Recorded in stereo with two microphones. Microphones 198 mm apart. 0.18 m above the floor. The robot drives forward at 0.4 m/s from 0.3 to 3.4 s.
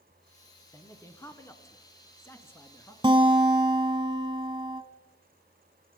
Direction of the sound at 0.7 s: 15° left (ahead or behind).